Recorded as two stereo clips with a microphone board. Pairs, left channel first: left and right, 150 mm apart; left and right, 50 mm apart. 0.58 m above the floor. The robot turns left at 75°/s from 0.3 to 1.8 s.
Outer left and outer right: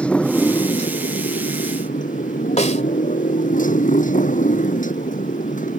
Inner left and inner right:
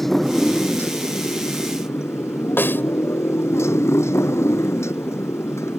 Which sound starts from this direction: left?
A snare drum, at 2.6 s.